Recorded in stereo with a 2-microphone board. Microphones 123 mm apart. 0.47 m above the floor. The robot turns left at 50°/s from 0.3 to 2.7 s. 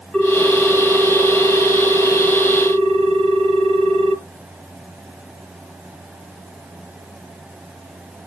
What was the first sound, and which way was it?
A ringtone, 10° left.